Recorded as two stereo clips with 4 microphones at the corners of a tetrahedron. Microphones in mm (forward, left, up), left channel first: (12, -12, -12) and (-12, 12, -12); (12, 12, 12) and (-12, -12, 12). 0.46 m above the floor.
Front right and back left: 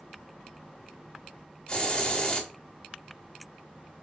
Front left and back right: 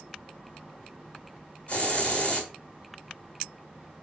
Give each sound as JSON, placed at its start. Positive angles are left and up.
{"t": 1.7, "sound": "a hiss", "azimuth_deg": 15, "distance_m": 1.2}